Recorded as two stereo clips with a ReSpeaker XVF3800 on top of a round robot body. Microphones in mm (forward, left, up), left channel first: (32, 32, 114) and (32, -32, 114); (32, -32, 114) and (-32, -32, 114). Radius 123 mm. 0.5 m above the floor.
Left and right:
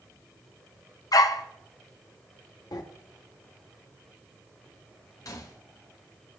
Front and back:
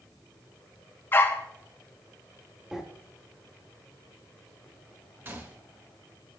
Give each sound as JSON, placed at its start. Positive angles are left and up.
{"t": 1.1, "sound": "a dog barking", "azimuth_deg": 60, "distance_m": 0.7}
{"t": 2.7, "sound": "breathing", "azimuth_deg": 100, "distance_m": 1.1}
{"t": 5.2, "sound": "a gunshot", "azimuth_deg": 120, "distance_m": 1.2}